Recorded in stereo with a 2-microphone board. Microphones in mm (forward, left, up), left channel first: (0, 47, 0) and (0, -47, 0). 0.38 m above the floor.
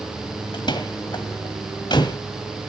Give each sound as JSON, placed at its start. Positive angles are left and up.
{"t": 0.5, "sound": "a door slam", "side_deg": 55, "distance_m": 1.6}